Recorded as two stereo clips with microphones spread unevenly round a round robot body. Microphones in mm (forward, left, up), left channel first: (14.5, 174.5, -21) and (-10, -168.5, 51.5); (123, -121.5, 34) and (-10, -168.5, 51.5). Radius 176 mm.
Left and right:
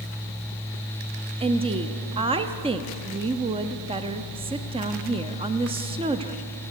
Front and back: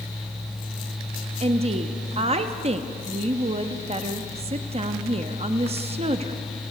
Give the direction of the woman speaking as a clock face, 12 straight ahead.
6 o'clock.